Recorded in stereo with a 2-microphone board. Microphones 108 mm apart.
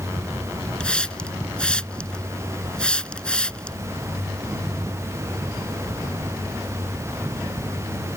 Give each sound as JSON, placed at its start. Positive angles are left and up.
{"t": 0.8, "sound": "a hiss", "side_deg": 10}